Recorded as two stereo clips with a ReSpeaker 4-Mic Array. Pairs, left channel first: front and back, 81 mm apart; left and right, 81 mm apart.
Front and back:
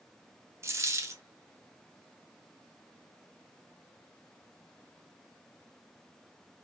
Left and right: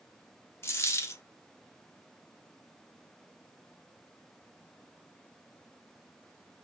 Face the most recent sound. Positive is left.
turn(degrees=135)